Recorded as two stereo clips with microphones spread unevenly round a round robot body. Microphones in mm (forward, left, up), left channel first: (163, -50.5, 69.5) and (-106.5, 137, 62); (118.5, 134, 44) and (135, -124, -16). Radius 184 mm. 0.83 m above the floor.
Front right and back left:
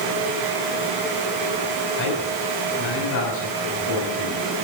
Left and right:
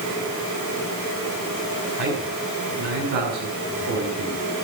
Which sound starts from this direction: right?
A man speaking, at 2.0 s.